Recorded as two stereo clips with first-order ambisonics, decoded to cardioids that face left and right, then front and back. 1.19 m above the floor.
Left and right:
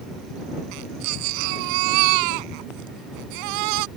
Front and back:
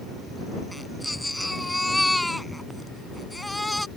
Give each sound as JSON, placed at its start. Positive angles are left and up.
{"t": 0.7, "sound": "a baby crying", "azimuth_deg": -85}